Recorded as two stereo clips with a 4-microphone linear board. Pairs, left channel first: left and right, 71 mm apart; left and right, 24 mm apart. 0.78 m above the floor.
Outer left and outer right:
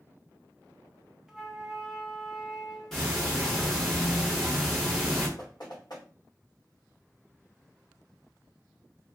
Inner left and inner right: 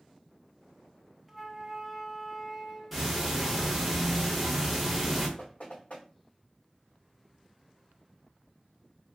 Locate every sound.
1.3 s a flute: 5° right (ahead or behind), 0.6 m
2.9 s ticking: 5° left (ahead or behind), 1.0 m
5.4 s knocking: 75° left (ahead or behind), 1.4 m